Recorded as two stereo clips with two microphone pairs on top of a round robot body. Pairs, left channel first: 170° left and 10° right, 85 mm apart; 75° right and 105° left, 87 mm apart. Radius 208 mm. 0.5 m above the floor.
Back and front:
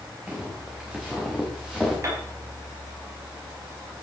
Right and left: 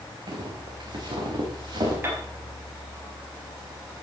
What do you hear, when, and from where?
0.3 s footsteps: 60° left, 4 m; by 1.9 s 75° left, 4.5 m
2.0 s a piano: 40° left, 4 m